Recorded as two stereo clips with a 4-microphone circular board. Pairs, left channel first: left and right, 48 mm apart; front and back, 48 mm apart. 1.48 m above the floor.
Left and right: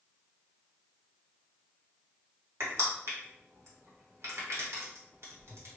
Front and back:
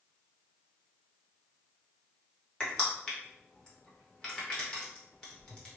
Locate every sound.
2.6 s crushing: 70° right, 1.4 m